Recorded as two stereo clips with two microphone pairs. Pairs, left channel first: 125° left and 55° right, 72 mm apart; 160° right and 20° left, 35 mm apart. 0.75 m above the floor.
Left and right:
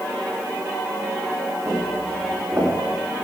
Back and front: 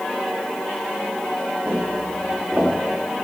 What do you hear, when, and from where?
1.6 s footsteps: 15° right, 7.5 m; by 2.7 s 20° right, 7.5 m